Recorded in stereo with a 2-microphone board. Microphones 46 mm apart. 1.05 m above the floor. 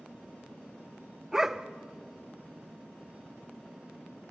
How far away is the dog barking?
About 0.7 m.